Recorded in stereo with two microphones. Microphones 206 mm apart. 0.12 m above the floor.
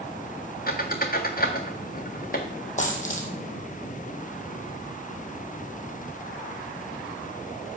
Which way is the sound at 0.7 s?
45° left (ahead or behind).